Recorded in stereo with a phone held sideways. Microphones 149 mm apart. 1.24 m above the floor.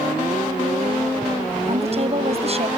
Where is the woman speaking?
45° right (ahead or behind).